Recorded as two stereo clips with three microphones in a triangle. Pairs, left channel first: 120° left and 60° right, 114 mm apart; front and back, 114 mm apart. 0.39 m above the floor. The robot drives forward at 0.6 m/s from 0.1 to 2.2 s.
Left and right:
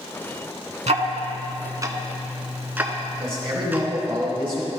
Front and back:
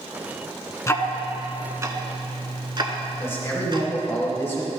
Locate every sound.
0.9 s ticking: 60° right, 0.6 m; by 3.9 s 135° right, 0.7 m
3.2 s a man speaking: 60° right, 2 m